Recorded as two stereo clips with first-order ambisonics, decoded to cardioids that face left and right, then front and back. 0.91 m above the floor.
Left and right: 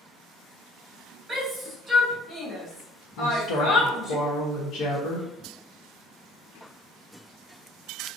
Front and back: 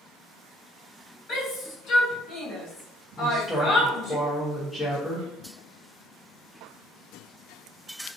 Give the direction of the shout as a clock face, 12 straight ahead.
1 o'clock.